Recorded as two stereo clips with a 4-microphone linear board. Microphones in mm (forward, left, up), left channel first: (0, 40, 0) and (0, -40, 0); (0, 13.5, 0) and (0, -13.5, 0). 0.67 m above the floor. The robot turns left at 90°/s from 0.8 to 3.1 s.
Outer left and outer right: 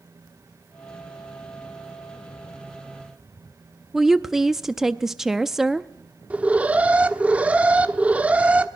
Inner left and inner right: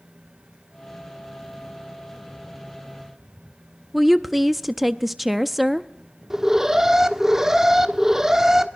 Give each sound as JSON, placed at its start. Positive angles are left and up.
{"t": 3.9, "sound": "a woman speaking", "side_deg": -5, "distance_m": 0.5}
{"t": 6.3, "sound": "an alarm", "side_deg": -20, "distance_m": 1.2}